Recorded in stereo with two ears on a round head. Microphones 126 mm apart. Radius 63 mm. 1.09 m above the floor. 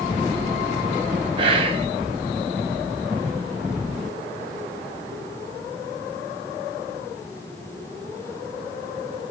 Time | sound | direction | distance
1.4 | whispering | 40° right (ahead or behind) | 1.3 m